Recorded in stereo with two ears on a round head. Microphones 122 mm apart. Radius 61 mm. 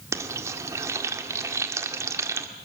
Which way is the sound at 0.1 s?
20° right (ahead or behind).